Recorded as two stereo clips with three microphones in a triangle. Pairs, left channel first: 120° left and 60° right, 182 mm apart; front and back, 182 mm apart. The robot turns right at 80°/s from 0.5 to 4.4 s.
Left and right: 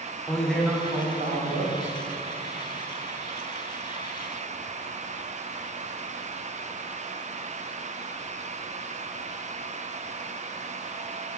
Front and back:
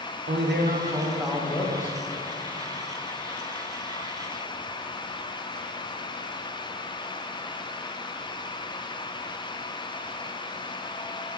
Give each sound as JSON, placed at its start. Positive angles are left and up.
{"t": 0.3, "sound": "a man speaking", "azimuth_deg": -155, "distance_m": 0.5}